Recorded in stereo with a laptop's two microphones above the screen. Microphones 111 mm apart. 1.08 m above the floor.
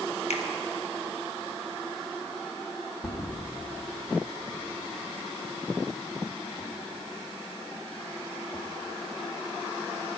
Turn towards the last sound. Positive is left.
turn(degrees=25)  # may be behind; listen again after turning